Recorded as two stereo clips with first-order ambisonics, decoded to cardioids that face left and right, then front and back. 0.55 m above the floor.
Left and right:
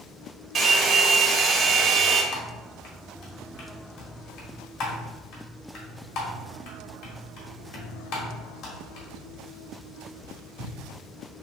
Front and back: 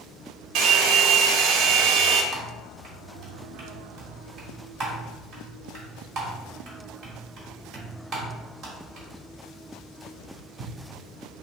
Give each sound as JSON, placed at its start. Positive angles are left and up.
{"t": 0.6, "sound": "a hair dryer", "azimuth_deg": -155, "distance_m": 0.9}
{"t": 2.3, "sound": "typing on a keyboard", "azimuth_deg": 120, "distance_m": 1.4}